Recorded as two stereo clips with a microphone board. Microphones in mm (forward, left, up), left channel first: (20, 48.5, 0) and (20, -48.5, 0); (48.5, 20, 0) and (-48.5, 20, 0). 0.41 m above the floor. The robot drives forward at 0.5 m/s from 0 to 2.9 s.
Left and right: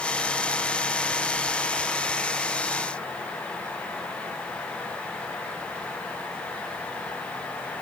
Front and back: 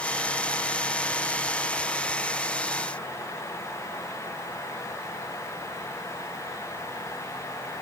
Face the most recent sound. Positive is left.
No sound to turn to.